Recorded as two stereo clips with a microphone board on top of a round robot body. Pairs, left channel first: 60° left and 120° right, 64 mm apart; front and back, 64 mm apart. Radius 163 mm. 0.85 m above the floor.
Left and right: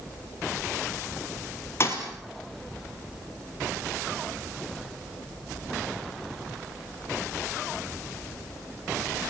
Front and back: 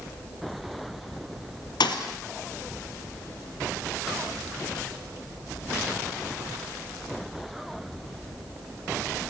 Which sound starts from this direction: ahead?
A thud, at 1.8 s.